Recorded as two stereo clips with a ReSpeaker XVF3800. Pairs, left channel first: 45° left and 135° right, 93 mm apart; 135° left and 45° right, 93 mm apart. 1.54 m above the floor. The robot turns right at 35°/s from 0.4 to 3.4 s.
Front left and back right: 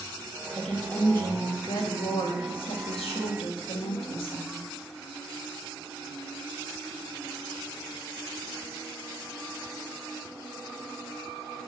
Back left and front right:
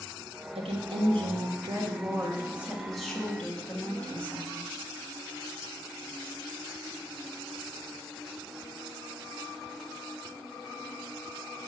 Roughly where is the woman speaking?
Ahead right.